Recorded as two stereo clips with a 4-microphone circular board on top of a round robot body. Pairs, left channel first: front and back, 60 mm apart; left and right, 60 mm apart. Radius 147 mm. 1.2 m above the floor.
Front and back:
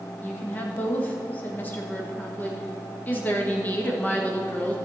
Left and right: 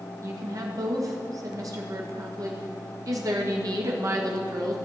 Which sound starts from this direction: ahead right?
A woman speaking, at 0.2 s.